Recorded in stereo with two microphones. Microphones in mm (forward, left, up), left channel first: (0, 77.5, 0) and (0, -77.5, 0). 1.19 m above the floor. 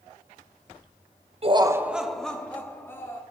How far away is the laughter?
About 0.8 m.